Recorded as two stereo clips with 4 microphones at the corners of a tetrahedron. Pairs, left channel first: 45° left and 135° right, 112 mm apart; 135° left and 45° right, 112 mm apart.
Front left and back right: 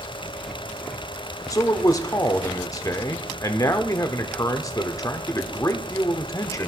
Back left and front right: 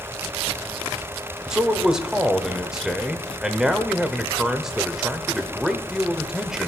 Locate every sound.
1.5 s a man speaking: 30° left, 0.8 m